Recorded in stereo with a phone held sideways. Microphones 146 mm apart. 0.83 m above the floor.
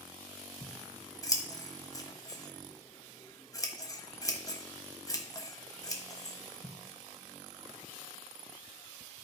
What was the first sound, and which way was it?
Scissors, 25° left (ahead or behind).